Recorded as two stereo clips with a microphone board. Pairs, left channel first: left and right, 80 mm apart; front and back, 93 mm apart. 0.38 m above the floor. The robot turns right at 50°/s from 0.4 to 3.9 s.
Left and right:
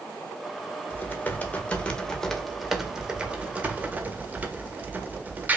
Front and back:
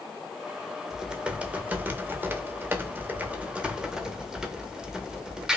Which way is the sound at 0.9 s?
100° left.